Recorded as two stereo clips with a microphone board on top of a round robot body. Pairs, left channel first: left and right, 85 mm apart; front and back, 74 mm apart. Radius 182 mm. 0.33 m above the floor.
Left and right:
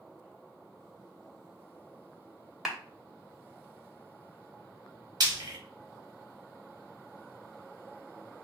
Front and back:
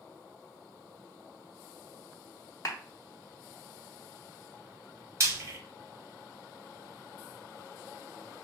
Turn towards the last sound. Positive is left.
turn(degrees=-130)